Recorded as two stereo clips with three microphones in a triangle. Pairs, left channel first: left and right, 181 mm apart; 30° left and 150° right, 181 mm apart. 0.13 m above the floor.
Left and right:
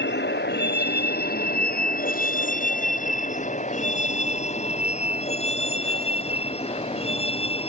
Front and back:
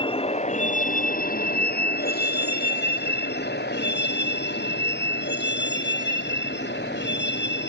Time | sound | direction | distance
0.0 | a vehicle | 90° left | ?